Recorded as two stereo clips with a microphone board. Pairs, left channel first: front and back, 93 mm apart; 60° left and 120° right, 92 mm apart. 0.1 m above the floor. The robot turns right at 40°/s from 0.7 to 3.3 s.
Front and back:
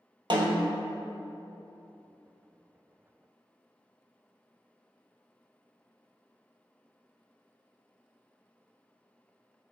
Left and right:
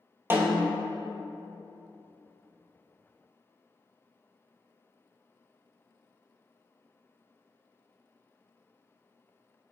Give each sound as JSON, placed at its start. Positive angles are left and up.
{"t": 0.3, "sound": "a snare drum", "azimuth_deg": 180, "distance_m": 0.7}